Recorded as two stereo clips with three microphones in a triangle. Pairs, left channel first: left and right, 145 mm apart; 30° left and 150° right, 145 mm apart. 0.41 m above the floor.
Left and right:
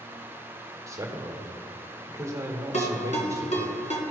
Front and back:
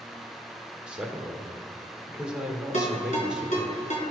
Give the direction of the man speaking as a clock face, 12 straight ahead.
3 o'clock.